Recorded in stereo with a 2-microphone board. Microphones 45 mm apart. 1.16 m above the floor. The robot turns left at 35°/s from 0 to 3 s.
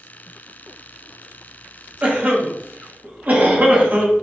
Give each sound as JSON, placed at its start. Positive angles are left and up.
{"t": 2.0, "sound": "a cough", "side_deg": -30, "distance_m": 0.7}